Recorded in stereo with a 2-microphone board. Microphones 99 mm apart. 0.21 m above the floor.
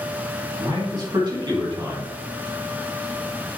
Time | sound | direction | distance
0.6 | a man speaking | 50° right (ahead or behind) | 2 m